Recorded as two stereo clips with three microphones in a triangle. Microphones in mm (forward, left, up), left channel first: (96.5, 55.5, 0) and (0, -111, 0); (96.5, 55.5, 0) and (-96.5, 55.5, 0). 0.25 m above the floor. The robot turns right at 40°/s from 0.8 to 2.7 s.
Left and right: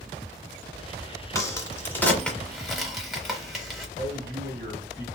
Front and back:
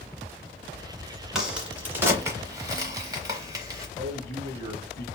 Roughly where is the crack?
Left.